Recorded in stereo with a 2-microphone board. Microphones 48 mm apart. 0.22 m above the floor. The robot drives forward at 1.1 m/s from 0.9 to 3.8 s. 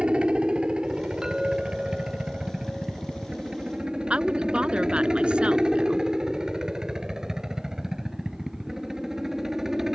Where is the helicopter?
20° right (ahead or behind); by 9.9 s 10° right (ahead or behind).